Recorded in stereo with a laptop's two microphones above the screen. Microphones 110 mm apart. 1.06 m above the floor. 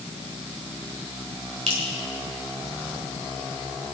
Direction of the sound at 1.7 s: 80° right.